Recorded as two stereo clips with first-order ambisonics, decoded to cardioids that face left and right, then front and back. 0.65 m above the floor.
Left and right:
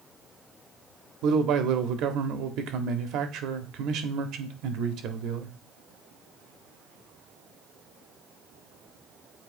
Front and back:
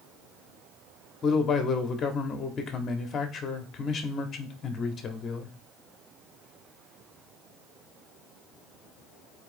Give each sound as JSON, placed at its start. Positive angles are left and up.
{"t": 1.2, "sound": "a man speaking", "azimuth_deg": -60, "distance_m": 1.0}